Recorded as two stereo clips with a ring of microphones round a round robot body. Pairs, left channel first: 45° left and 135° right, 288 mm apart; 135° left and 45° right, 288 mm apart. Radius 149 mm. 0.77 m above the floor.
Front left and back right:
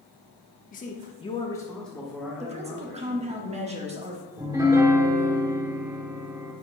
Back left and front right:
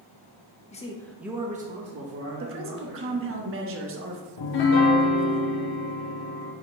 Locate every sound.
0.7 s a man speaking: 85° left, 1.1 m; by 3.4 s 60° right, 2.5 m
2.4 s a woman speaking: 75° right, 1.2 m
4.4 s a piano: 145° left, 0.9 m